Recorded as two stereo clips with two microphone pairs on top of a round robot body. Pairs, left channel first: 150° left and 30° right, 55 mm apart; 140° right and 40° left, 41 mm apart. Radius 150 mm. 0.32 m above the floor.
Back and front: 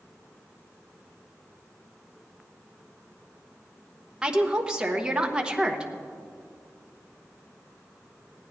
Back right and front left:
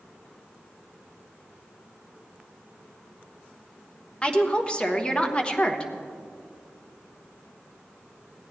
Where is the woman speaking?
85° right, 1.4 m.